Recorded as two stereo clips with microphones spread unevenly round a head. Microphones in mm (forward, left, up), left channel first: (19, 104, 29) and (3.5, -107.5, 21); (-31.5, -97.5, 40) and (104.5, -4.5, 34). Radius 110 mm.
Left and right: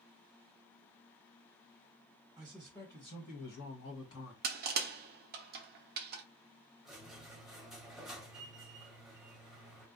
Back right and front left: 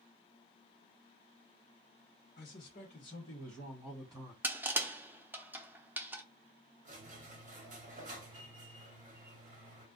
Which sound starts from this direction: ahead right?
Crushing, at 4.4 s.